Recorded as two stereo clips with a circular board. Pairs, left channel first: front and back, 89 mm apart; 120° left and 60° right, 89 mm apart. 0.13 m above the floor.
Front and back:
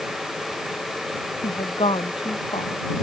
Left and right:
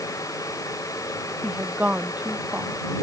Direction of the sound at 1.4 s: 15° left.